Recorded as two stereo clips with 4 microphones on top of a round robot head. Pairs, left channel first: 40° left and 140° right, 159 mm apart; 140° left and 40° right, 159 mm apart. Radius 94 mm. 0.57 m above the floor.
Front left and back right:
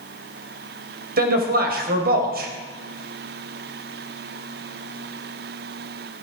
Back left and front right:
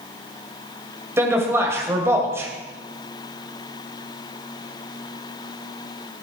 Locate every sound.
1.2 s a man speaking: 115° right, 2.5 m